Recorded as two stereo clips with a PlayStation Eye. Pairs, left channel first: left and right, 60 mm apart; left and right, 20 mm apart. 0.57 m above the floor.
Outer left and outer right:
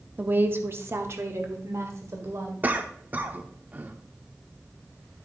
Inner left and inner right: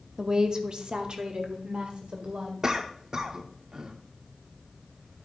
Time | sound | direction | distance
0.2 | a woman speaking | 30° right (ahead or behind) | 0.8 m
2.6 | a cough | 30° right (ahead or behind) | 1.0 m